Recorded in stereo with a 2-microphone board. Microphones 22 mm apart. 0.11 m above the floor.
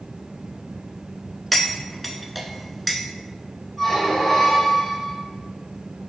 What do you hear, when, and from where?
1.5 s cutlery clinking: centre (ahead or behind), 0.6 m
3.8 s a squeak: 10° left (ahead or behind), 2.0 m